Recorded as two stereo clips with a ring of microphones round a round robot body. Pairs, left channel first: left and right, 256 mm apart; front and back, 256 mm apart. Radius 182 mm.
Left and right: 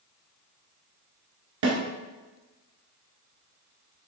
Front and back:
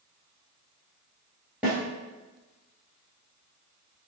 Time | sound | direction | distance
1.6 | a snare drum | 95° right | 1.1 m